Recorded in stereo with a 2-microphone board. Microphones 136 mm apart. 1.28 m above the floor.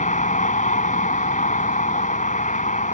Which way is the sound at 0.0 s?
70° left (ahead or behind).